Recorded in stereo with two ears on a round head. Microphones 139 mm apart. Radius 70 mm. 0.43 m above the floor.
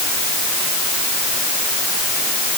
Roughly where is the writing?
I don't hear writing.